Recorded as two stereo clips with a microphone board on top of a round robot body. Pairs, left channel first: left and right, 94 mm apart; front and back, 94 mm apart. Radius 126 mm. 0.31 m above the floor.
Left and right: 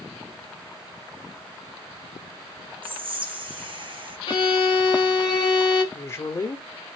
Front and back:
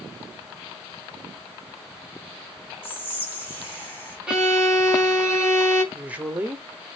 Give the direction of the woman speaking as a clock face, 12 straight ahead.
8 o'clock.